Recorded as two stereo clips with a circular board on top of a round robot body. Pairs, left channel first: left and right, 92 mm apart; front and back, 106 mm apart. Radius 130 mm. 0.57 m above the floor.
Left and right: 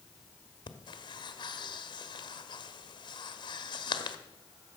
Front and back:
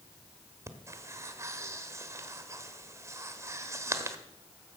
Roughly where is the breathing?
Behind left.